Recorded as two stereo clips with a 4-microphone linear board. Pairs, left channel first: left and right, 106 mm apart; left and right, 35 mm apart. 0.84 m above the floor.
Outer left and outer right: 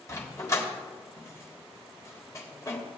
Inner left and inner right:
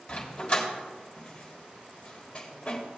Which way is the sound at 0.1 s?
30° left (ahead or behind).